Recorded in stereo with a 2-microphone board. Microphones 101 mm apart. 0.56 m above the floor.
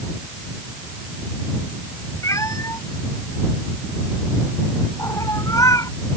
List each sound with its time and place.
2.2 s a cat meowing: 30° left (ahead or behind)